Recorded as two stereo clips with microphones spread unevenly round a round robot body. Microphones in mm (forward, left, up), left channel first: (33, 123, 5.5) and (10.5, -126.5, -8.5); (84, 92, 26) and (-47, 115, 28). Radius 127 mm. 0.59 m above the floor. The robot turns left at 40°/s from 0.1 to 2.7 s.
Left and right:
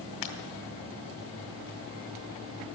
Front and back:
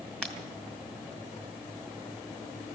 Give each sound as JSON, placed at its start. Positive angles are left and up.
{"t": 0.2, "sound": "breaking glass", "azimuth_deg": 75, "distance_m": 1.9}